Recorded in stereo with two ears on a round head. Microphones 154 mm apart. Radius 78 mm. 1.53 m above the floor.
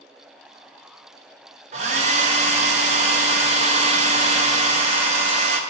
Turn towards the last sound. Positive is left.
turn(degrees=-40)  # may be behind; listen again after turning